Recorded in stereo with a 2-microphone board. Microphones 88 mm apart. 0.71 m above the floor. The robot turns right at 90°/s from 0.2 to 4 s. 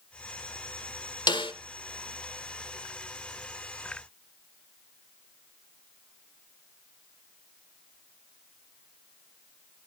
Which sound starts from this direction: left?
A snare drum, at 1.3 s.